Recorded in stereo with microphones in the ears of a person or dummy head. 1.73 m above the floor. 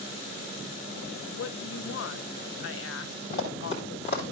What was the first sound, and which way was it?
A woman speaking, 70° left (ahead or behind).